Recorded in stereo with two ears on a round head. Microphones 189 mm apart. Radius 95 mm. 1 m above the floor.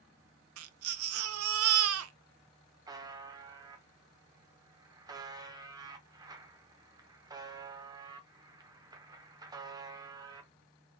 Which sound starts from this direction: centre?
A buzzer, at 2.9 s.